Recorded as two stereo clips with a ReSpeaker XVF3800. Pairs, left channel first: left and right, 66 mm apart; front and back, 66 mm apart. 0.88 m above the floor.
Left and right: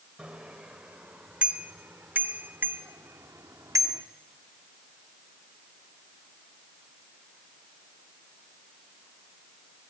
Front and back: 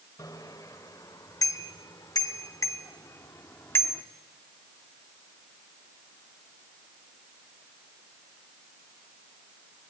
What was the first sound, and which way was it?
A bicycle bell, 10° right.